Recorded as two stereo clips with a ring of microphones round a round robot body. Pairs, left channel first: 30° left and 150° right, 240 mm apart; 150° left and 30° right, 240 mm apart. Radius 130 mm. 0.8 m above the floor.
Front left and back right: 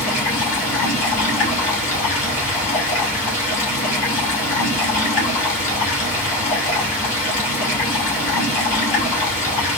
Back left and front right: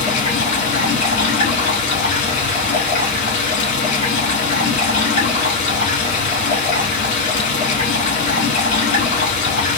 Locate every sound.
0.0 s running water: 90° left, 3 m